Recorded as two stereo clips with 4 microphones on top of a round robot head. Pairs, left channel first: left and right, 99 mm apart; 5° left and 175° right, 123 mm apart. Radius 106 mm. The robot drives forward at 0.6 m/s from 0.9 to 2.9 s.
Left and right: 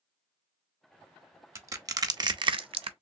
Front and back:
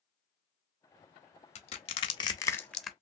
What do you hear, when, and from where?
1.6 s crushing: 30° right, 1.0 m; by 2.9 s 90° right, 0.5 m